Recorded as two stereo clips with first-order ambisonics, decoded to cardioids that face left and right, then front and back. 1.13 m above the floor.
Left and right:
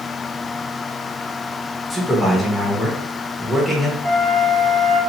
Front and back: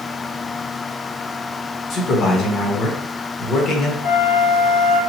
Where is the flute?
Straight ahead, 1.3 m.